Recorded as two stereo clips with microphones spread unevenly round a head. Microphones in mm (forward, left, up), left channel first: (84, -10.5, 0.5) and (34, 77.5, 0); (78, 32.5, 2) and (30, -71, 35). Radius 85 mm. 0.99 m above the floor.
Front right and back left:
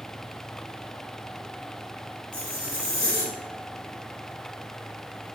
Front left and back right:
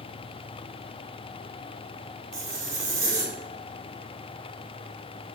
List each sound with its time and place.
2.3 s a zipper: 90° right, 0.9 m